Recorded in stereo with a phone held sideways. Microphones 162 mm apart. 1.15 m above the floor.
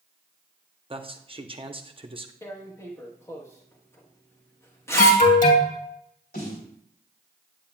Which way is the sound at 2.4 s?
15° left (ahead or behind).